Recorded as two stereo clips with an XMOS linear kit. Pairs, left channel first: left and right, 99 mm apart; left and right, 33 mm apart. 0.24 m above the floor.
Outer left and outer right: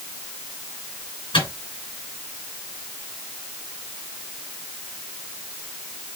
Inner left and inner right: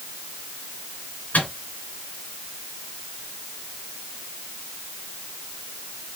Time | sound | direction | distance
1.3 | a microwave | 60° left (ahead or behind) | 2.5 m